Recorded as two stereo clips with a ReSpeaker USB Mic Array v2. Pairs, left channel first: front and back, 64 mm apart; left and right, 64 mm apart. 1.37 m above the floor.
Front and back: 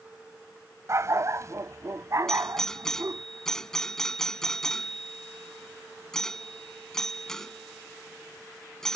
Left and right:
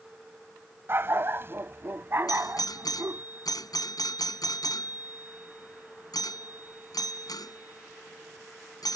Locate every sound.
0.9 s a dog barking: 140° right
2.3 s a doorbell: 85° left